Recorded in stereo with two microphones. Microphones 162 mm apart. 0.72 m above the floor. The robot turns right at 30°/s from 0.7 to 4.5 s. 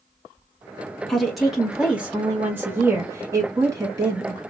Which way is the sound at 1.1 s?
5° left (ahead or behind).